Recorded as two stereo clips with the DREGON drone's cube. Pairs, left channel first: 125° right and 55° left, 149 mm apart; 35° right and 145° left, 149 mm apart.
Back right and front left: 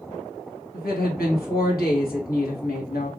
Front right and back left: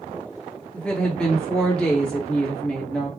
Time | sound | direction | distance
0.7 | a woman speaking | 120° right | 1.4 m